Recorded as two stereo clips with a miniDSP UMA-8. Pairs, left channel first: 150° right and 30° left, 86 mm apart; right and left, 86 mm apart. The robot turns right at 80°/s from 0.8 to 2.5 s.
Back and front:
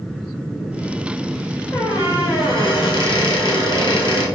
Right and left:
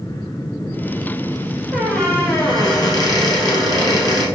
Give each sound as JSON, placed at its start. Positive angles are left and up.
{"t": 1.7, "sound": "a squeak", "azimuth_deg": 170, "distance_m": 1.0}